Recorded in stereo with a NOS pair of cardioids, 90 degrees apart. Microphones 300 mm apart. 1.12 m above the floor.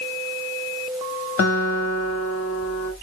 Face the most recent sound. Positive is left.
turn(degrees=55)